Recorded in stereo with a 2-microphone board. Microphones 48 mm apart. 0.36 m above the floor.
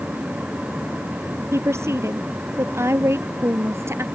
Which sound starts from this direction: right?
A woman speaking, at 1.5 s.